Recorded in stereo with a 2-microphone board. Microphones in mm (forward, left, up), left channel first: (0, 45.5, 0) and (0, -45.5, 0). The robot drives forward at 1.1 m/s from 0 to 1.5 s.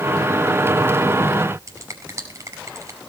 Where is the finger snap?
35° right (ahead or behind), 5.5 m.